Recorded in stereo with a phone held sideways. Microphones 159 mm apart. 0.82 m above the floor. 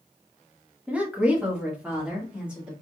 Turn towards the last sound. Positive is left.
turn(degrees=-5)  # may be behind; listen again after turning